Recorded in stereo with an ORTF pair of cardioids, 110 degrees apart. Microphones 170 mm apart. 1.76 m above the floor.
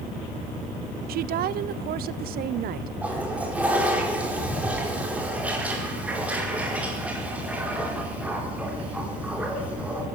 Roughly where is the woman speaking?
Ahead right.